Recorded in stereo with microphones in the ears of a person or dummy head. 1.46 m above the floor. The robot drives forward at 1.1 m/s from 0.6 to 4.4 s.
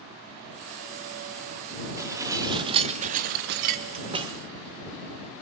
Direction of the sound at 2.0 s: 15° right (ahead or behind).